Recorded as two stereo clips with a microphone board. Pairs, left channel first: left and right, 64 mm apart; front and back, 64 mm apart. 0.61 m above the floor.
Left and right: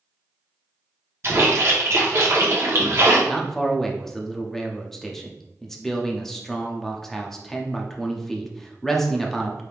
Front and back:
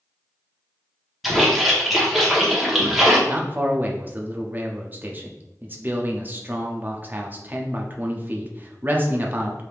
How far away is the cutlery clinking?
I don't hear cutlery clinking.